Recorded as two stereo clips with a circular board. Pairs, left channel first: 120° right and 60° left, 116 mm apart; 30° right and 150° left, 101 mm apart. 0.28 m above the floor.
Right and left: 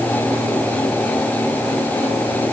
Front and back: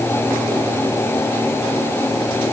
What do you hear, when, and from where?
Only background noise.